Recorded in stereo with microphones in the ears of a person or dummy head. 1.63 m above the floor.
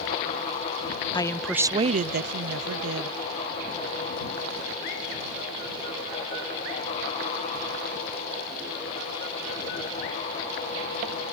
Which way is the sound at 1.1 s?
25° left (ahead or behind).